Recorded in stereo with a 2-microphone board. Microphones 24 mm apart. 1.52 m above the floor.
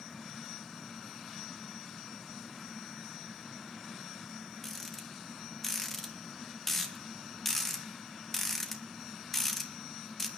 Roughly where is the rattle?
Centre.